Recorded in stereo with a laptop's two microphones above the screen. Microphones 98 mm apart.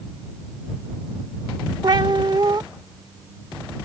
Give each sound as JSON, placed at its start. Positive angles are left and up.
{"t": 1.8, "sound": "a cat meowing", "side_deg": -50}